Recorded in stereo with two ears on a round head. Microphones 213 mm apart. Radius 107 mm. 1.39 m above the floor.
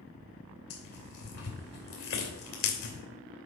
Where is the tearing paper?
65° left (ahead or behind), 2.5 m.